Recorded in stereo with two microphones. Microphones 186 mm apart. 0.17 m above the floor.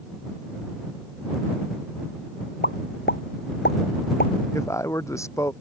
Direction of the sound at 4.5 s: 15° left (ahead or behind).